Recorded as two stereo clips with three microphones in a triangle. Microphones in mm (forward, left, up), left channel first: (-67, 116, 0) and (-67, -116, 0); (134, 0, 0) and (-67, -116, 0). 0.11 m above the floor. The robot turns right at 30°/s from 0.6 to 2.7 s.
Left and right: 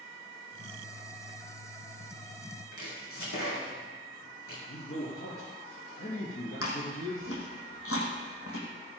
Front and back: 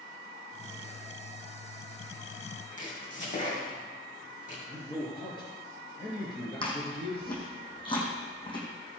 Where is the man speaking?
100° left, 3 m.